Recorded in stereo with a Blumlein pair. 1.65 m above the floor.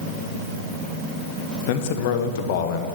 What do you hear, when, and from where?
1.7 s a man speaking: 50° left, 1.3 m